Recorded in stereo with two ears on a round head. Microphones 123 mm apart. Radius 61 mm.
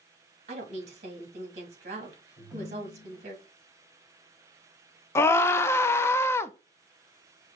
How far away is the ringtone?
About 3 m.